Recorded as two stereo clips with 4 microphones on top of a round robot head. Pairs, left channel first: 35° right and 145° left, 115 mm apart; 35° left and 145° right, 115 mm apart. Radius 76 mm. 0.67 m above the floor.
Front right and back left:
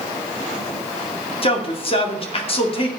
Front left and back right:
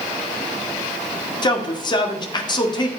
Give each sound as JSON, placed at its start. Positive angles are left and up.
{"t": 1.4, "sound": "a man speaking", "azimuth_deg": -10, "distance_m": 2.5}